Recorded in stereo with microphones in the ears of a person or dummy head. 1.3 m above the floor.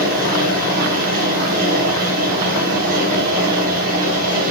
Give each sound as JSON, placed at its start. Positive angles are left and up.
{"t": 0.0, "sound": "a fan", "side_deg": -45, "distance_m": 6.0}